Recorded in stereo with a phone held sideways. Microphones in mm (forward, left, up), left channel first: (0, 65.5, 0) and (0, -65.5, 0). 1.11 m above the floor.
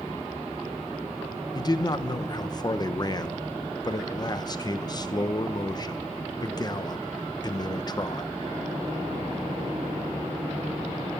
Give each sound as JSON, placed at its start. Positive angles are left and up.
{"t": 1.6, "sound": "a man speaking", "side_deg": 30, "distance_m": 0.8}